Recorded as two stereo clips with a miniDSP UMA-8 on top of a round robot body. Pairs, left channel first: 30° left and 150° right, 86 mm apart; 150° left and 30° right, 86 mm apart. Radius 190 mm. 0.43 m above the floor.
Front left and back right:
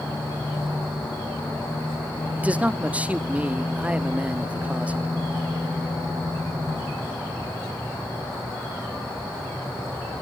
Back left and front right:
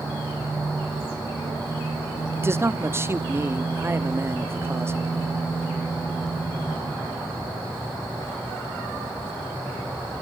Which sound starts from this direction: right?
A man speaking, at 2.4 s.